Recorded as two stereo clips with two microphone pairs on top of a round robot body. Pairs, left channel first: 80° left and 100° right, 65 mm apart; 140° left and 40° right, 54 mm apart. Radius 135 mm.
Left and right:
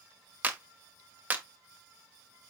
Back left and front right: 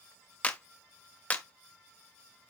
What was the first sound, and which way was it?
A clap, 160° right.